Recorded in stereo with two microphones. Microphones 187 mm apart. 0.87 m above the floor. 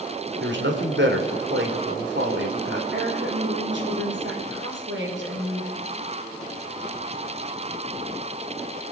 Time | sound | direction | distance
0.4 | a man speaking | 75° right (ahead or behind) | 2.5 m
2.9 | a woman speaking | 80° right | 4 m